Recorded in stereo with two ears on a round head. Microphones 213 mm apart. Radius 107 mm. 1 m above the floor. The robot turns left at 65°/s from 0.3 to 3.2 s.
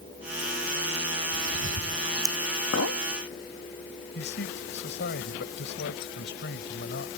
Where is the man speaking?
50° left (ahead or behind).